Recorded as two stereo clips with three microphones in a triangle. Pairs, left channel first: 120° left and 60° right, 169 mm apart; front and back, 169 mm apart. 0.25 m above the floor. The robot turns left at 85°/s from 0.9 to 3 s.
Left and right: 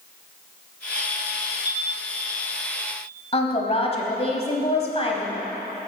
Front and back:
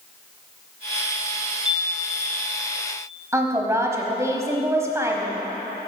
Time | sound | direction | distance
1.6 | a chime | 95° right | 1.6 m
3.3 | a woman speaking | 120° left | 1.1 m